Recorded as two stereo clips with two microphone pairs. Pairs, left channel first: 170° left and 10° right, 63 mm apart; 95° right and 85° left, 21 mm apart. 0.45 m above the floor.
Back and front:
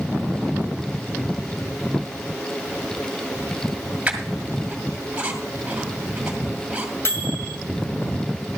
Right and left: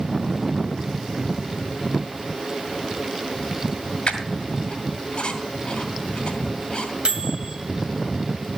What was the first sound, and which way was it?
A squeak, 75° right.